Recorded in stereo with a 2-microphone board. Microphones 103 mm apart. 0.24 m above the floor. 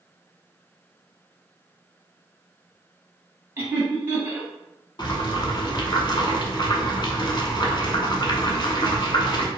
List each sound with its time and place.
3.6 s laughter: 20° right (ahead or behind), 1.4 m
5.0 s boiling: 50° left (ahead or behind), 0.6 m